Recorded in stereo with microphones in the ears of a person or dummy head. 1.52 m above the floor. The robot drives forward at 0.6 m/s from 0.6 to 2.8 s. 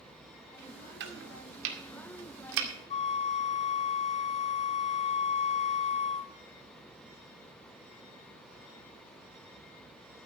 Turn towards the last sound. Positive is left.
turn(degrees=35)  # may be behind; listen again after turning